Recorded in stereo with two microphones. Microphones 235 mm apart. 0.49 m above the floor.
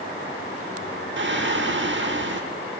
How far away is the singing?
About 0.9 m.